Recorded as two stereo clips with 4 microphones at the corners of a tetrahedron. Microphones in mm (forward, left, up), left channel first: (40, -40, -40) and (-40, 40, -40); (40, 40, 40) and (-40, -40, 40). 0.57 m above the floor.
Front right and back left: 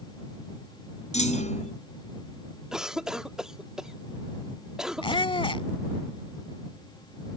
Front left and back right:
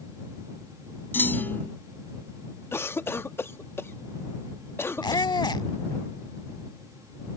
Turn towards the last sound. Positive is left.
turn(degrees=-5)